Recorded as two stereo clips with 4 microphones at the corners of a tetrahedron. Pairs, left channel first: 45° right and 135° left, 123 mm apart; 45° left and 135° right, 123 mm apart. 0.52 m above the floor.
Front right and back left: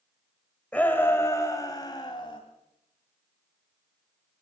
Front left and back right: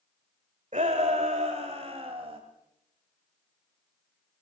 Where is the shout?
125° right, 1.8 m; by 2.4 s 95° right, 3 m.